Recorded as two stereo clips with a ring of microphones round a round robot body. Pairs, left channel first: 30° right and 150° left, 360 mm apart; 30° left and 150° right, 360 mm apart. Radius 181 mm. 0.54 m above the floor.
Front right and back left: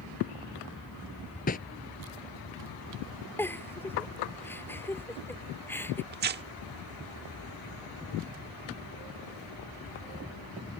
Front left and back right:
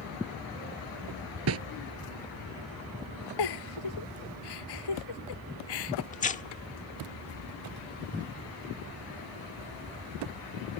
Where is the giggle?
55° left.